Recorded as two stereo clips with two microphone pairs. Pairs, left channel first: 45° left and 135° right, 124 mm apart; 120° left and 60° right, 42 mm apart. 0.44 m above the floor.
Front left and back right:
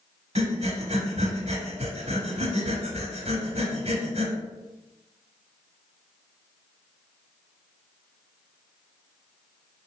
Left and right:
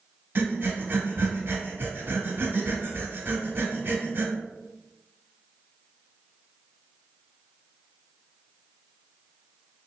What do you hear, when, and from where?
0.3 s breathing: 95° right, 0.8 m